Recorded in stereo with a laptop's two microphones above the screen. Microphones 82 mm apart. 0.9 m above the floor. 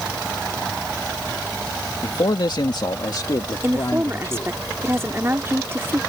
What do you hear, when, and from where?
2.0 s a man speaking: 55° left (ahead or behind); by 4.5 s 35° left (ahead or behind)
3.6 s a woman speaking: 30° right (ahead or behind)